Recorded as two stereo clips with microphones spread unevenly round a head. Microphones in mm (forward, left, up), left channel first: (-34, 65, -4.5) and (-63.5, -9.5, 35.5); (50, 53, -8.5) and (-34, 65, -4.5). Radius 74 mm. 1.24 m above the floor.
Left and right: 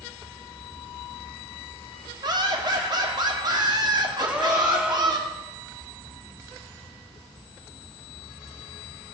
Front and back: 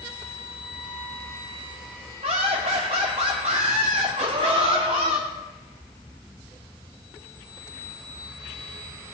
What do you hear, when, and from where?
2.2 s laughter: 145° right, 2.5 m
4.2 s a gasp: straight behind, 1.8 m